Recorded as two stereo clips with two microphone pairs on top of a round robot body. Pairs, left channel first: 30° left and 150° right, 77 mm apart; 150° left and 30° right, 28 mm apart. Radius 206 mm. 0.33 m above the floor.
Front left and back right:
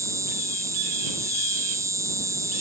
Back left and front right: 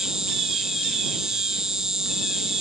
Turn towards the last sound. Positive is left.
turn(degrees=-105)